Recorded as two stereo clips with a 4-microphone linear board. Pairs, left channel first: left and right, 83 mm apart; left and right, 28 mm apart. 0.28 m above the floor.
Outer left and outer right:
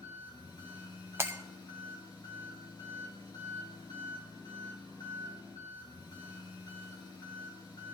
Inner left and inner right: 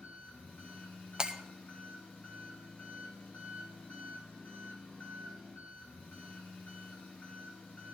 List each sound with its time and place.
0.0 s an engine running: 60° left (ahead or behind), 4 m
1.2 s breaking glass: 30° right (ahead or behind), 0.8 m